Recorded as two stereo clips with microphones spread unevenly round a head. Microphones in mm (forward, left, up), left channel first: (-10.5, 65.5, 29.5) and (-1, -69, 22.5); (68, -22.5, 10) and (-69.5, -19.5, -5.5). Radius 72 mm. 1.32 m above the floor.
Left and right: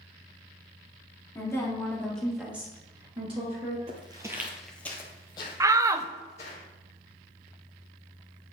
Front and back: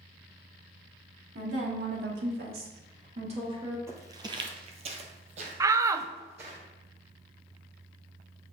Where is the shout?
135° right, 0.5 m.